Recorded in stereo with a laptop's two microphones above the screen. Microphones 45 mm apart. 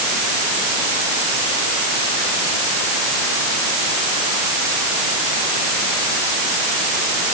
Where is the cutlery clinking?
No cutlery clinking in this recording.